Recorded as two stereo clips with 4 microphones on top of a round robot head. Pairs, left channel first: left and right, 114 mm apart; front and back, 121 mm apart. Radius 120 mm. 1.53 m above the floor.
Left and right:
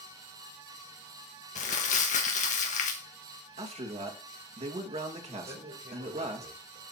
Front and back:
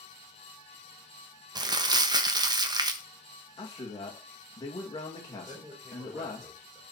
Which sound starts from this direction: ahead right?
A man speaking, at 3.6 s.